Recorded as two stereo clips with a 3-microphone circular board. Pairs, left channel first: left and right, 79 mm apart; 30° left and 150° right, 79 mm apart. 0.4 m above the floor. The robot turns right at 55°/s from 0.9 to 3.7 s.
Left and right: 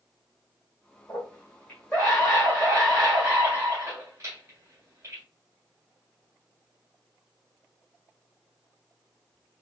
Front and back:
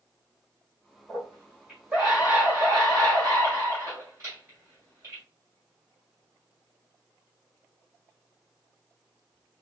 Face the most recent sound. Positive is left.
turn(degrees=-105)